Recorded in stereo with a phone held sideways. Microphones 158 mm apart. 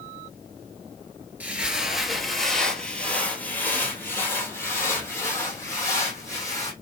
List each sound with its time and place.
1.4 s footsteps: 10° right (ahead or behind), 1.3 m; by 6.7 s 20° left (ahead or behind), 3.5 m